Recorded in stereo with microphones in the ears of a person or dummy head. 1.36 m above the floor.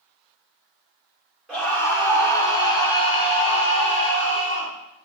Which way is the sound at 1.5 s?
Centre (ahead or behind).